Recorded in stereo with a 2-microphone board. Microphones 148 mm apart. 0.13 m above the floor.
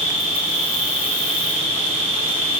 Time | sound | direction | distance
0.0 | an insect | 45° right (ahead or behind) | 2 m